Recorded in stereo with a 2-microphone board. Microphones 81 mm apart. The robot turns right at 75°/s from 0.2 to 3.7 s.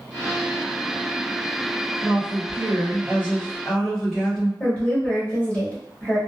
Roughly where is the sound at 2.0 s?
Behind right.